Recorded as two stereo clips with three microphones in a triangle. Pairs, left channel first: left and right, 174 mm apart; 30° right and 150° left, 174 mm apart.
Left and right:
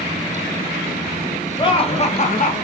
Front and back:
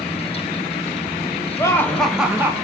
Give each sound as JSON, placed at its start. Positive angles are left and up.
{"t": 1.6, "sound": "laughter", "azimuth_deg": 35, "distance_m": 0.8}